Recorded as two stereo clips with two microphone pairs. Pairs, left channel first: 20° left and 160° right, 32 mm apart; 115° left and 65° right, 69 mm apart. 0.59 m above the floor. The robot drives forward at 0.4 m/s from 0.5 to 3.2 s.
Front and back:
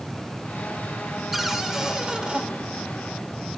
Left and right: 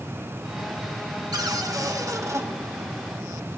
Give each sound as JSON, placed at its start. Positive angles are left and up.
{"t": 1.3, "sound": "a cupboard door", "azimuth_deg": -75, "distance_m": 1.0}